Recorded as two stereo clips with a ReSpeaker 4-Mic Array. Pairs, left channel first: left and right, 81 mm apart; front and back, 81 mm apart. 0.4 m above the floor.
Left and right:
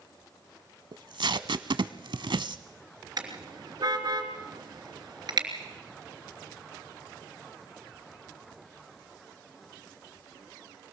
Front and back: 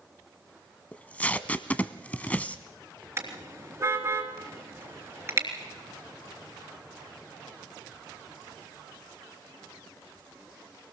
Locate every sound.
0.9 s tape being pulled: 75° right, 0.8 m
3.2 s a car horn: 125° right, 3 m